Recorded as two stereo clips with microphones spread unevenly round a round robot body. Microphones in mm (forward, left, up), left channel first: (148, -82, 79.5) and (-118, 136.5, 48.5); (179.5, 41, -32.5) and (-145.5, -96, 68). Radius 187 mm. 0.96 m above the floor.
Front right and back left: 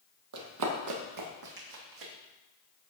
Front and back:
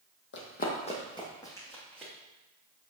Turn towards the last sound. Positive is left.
turn(degrees=115)